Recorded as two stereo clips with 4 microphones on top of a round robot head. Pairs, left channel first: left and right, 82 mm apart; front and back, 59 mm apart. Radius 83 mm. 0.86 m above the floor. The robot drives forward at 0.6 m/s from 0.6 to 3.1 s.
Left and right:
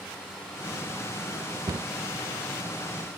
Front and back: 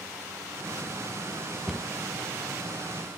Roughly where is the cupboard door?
Right.